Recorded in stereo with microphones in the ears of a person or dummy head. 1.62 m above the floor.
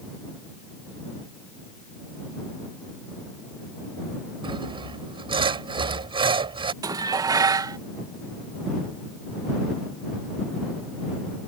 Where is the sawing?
30° right (ahead or behind).